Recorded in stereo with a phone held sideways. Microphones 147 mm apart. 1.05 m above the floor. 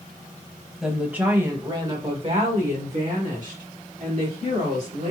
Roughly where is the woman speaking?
Centre.